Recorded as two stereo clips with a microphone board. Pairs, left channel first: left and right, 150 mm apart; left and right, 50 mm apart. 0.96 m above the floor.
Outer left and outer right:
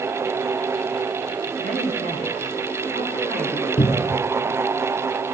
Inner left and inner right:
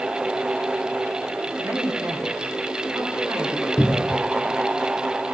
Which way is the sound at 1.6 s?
65° right (ahead or behind).